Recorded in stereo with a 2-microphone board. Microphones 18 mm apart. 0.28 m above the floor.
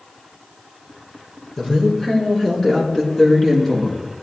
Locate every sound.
1.6 s a woman speaking: 25° left (ahead or behind), 5 m; by 4.0 s 15° left (ahead or behind), 2.5 m